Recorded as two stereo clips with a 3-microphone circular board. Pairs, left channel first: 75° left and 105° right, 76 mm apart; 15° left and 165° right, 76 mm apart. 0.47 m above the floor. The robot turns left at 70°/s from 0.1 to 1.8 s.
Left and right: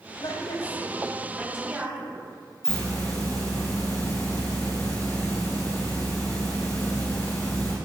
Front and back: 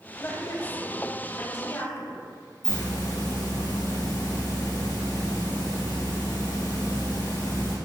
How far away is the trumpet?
No trumpet in this recording.